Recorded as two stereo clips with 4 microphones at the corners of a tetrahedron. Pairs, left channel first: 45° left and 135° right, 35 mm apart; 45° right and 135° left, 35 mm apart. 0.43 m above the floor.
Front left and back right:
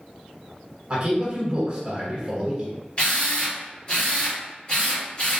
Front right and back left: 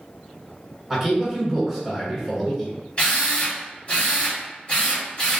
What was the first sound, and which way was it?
A man speaking, 145° right.